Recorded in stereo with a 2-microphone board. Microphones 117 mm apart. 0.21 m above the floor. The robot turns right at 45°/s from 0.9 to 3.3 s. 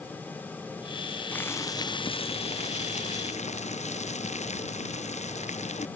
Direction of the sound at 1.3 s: 10° left.